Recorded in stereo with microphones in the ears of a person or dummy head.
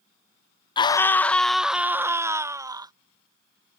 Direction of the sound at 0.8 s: 25° left (ahead or behind).